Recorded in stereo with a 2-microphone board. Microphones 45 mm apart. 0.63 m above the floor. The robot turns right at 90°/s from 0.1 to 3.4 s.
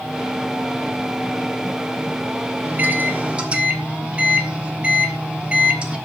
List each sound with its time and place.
2.6 s a microwave: 105° right, 1.1 m; by 6.0 s 35° right, 1.1 m